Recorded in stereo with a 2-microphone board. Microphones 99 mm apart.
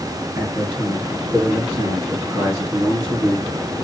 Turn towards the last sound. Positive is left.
turn(degrees=-30)  # may be behind; listen again after turning